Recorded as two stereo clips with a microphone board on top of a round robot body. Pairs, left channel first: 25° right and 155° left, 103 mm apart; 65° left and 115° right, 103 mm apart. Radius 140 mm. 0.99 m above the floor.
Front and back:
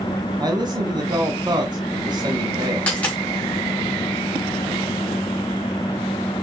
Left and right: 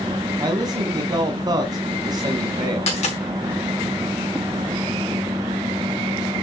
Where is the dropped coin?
55° left, 2.5 m.